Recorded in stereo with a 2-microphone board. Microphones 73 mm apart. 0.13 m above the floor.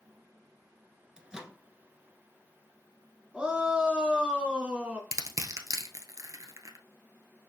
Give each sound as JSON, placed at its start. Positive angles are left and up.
{"t": 1.2, "sound": "a microwave", "side_deg": -10, "distance_m": 1.1}
{"t": 3.3, "sound": "a shout", "side_deg": -15, "distance_m": 1.5}
{"t": 5.1, "sound": "crushing", "side_deg": -55, "distance_m": 1.0}